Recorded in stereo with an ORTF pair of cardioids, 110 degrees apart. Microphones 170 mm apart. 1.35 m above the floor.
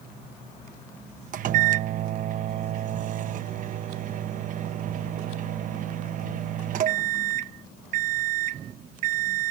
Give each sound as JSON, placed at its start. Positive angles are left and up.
{"t": 1.3, "sound": "a microwave", "azimuth_deg": -55}